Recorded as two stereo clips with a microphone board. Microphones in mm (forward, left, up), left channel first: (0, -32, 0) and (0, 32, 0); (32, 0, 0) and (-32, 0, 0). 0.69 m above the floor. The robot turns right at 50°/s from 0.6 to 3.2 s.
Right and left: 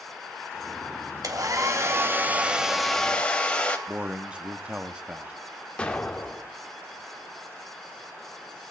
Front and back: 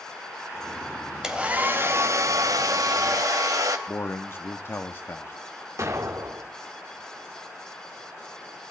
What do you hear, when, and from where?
1.2 s a hair dryer: 100° left, 2.5 m; by 3.8 s 160° right, 2.5 m
3.9 s a man speaking: 25° left, 1.4 m
5.8 s an explosion: 160° right, 2.5 m